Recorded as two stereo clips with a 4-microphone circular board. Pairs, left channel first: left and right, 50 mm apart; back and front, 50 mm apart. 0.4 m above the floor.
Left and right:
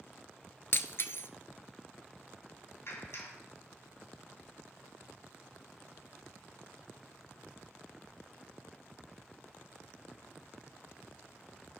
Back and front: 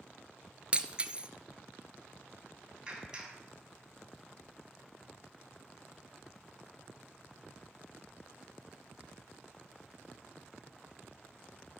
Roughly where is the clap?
Left.